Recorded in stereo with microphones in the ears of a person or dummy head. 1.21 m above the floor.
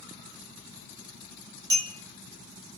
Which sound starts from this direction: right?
A clink, at 1.7 s.